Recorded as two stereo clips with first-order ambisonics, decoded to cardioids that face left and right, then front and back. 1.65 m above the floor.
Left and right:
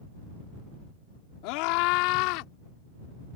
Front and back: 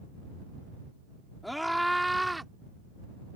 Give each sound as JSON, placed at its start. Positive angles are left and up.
{"t": 1.4, "sound": "a scream", "azimuth_deg": 90}